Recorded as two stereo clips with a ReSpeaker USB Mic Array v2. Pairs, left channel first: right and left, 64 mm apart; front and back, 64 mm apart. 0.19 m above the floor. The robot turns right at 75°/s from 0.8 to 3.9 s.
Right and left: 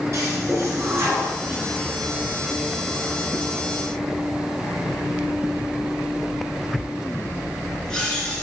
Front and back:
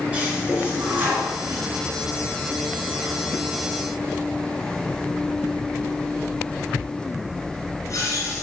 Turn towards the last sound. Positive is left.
turn(degrees=-15)